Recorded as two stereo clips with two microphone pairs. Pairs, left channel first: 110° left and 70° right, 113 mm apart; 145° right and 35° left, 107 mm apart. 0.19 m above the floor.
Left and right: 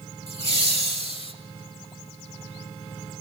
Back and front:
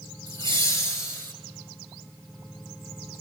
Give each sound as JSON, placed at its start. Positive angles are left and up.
{"t": 0.3, "sound": "laughter", "azimuth_deg": -95, "distance_m": 4.0}